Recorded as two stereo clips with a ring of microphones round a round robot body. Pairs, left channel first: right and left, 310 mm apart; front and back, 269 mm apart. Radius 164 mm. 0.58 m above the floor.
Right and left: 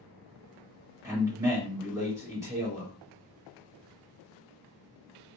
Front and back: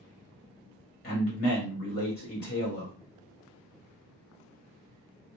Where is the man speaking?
15° left, 1.5 m.